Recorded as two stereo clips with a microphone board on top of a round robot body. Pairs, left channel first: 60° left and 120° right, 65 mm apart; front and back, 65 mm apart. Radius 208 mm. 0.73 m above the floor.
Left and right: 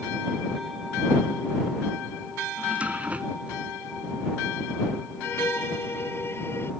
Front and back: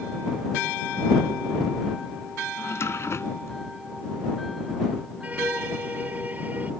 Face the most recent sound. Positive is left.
turn(degrees=115)